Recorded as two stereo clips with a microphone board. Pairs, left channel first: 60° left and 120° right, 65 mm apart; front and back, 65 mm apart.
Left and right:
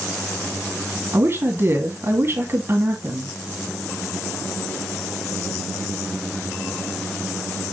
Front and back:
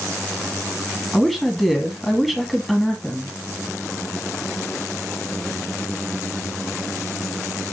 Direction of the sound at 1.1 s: 90° right.